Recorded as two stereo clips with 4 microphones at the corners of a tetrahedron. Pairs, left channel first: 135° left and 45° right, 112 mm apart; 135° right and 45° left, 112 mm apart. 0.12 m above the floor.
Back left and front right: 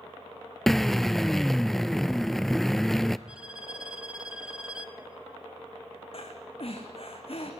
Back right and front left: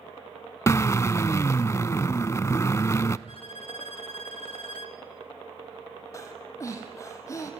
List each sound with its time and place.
0.7 s a drill: 140° right, 0.6 m
3.3 s a violin: 125° right, 1.6 m
6.1 s breathing: 165° left, 3 m